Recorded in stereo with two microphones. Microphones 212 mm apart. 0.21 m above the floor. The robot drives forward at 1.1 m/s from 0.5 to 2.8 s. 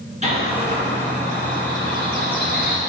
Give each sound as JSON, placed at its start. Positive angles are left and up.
{"t": 0.2, "sound": "a bird", "side_deg": -30, "distance_m": 3.0}